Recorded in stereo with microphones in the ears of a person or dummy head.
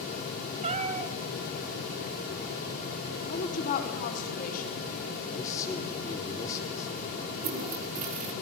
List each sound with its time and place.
0.6 s a cat meowing: 40° right (ahead or behind), 2 m
3.3 s a woman speaking: 50° left (ahead or behind), 4 m
5.3 s a man speaking: 15° left (ahead or behind), 4.5 m
7.3 s a toilet flushing: 35° right (ahead or behind), 1.9 m